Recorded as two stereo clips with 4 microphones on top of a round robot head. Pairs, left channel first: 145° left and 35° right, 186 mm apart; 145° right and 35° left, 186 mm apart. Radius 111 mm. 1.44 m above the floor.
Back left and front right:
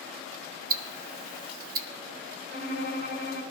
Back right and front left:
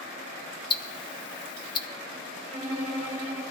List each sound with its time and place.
0.7 s ticking: 80° right, 0.6 m
2.5 s a violin: 25° right, 5.5 m